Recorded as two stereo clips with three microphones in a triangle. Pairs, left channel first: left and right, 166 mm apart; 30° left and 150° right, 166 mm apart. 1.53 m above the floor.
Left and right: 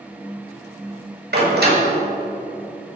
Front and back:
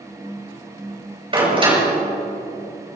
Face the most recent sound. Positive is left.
turn(degrees=-95)